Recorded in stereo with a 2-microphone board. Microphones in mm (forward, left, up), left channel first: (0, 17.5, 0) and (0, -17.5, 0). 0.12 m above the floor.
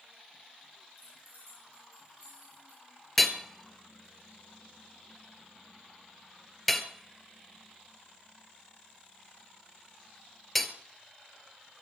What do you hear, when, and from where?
1.0 s keys jangling: 65° right (ahead or behind), 10 m
3.2 s hammering: 5° left (ahead or behind), 1.1 m